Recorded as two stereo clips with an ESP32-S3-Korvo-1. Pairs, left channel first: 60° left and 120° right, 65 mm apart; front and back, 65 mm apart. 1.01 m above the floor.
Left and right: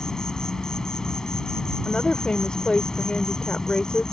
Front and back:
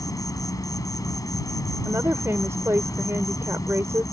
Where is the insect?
20° right.